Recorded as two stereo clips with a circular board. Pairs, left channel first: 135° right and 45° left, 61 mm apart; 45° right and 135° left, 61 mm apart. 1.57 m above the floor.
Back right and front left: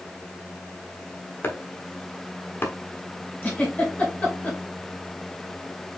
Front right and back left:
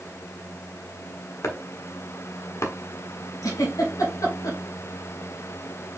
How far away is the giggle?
About 2.5 m.